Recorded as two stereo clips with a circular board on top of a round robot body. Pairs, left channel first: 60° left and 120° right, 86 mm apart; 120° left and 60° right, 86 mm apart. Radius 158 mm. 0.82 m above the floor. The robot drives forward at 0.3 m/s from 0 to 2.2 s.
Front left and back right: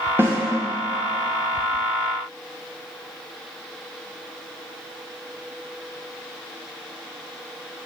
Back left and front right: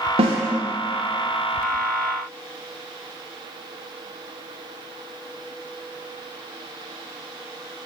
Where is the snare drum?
55° right, 0.7 m; by 0.4 s 60° right, 0.7 m.